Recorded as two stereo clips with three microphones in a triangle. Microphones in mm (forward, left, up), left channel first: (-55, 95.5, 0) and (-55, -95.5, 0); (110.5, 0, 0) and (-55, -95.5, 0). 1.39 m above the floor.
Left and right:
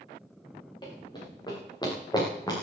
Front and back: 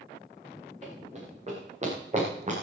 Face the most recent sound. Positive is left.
turn(degrees=160)